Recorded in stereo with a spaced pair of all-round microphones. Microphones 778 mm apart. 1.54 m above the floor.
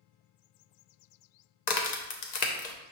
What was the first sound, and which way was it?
A crack, 60° left (ahead or behind).